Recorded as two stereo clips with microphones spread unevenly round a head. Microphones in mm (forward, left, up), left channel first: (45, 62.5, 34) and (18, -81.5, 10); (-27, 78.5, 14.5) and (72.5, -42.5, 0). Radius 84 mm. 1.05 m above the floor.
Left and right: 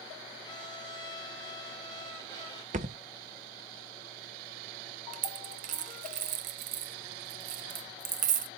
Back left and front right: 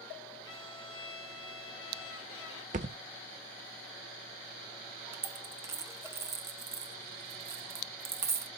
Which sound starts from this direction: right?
A thud, at 2.7 s.